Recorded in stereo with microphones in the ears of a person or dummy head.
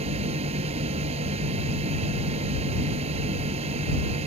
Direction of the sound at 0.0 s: 35° right (ahead or behind).